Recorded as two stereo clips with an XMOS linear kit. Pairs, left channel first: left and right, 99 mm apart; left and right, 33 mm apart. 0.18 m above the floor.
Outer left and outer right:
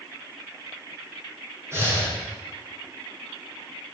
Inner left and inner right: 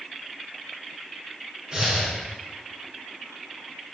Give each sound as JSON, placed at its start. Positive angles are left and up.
{"t": 1.7, "sound": "breathing", "side_deg": -25, "distance_m": 5.5}